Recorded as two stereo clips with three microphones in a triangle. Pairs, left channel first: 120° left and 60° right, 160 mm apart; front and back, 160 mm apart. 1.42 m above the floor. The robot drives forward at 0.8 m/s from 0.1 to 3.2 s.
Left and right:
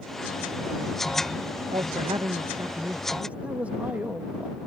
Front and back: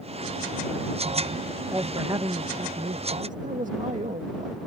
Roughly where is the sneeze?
I don't hear a sneeze.